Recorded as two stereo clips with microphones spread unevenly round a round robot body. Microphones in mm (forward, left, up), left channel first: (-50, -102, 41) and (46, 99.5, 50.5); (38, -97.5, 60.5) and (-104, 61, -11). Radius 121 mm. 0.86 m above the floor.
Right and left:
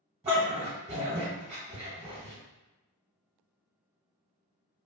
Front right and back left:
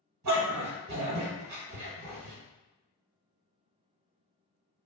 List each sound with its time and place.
0.2 s a dog barking: 130° left, 1.3 m